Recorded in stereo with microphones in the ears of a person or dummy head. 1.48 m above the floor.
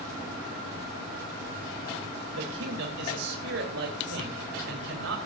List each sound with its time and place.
2.3 s a man speaking: 75° right (ahead or behind), 3.5 m